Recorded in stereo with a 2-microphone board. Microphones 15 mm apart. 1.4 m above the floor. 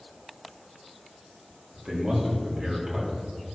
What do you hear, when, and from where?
1.7 s a man speaking: 70° right (ahead or behind), 3 m; by 3.5 s 75° right (ahead or behind), 4 m